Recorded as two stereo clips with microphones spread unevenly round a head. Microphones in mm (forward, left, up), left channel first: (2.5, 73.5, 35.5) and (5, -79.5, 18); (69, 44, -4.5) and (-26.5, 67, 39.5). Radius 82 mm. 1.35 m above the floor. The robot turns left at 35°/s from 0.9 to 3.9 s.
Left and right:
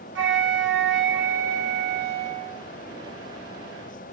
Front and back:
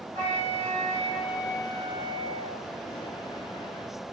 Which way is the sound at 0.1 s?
95° right.